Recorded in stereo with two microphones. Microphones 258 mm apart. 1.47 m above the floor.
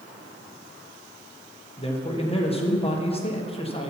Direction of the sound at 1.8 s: 25° left (ahead or behind).